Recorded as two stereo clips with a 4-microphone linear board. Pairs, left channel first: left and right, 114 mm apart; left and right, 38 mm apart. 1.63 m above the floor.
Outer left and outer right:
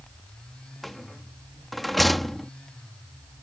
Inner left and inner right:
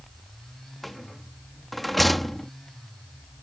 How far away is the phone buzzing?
No phone buzzing in this recording.